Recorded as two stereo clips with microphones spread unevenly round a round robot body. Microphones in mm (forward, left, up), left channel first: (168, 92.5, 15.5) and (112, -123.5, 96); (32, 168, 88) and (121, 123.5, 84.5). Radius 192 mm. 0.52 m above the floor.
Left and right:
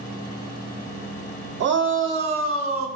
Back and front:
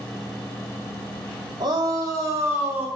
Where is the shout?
60° right, 2 m; by 2.9 s 85° right, 1.8 m.